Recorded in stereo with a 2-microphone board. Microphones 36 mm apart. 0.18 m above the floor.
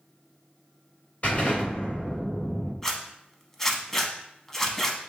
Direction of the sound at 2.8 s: 15° left (ahead or behind).